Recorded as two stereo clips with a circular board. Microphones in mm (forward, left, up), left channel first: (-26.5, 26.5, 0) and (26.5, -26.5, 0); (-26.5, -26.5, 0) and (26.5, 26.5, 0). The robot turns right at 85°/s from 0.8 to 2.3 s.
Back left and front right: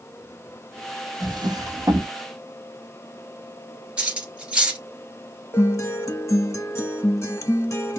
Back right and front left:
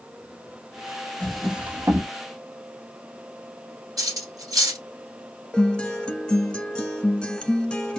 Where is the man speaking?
No man speaking in this recording.